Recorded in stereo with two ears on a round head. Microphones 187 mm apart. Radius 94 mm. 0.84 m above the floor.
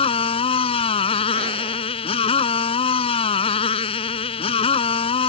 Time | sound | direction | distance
0.0 | a motorcycle | 30° left (ahead or behind) | ?